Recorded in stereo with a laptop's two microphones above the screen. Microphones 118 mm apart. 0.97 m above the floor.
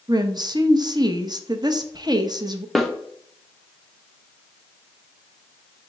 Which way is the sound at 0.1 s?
40° right (ahead or behind).